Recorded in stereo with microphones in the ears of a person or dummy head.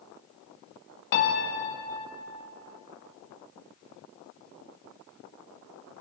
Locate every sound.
1.1 s a piano: 50° left (ahead or behind), 1.6 m